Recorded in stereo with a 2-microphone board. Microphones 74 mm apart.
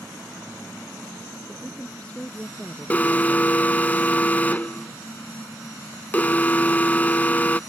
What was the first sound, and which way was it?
A woman speaking, 15° left (ahead or behind).